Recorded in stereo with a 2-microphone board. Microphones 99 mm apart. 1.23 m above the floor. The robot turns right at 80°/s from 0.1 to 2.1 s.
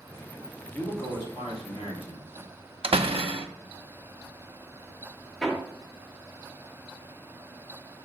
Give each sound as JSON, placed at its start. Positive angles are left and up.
{"t": 0.7, "sound": "a man speaking", "azimuth_deg": 15, "distance_m": 2.5}
{"t": 2.8, "sound": "a door slam", "side_deg": -70, "distance_m": 0.7}
{"t": 5.4, "sound": "hammering", "side_deg": 0, "distance_m": 1.7}